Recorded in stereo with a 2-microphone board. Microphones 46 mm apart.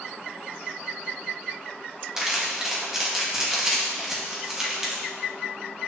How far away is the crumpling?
About 1.7 m.